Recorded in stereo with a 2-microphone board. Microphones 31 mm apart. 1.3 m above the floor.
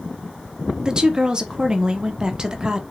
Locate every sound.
0.8 s a woman speaking: 25° right (ahead or behind), 0.6 m